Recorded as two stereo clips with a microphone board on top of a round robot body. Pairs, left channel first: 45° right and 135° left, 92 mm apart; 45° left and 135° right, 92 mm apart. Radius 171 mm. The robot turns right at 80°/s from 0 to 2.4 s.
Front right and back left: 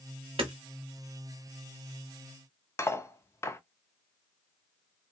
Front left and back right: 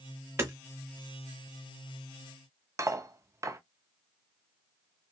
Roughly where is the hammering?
Behind.